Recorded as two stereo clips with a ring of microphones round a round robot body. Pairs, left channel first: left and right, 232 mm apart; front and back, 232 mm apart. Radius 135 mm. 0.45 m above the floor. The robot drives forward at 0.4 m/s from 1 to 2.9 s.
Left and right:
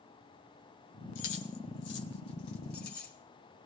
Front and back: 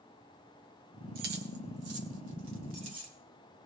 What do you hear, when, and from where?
1.1 s keys jangling: 130° left, 1.7 m; by 3.1 s 145° left, 2 m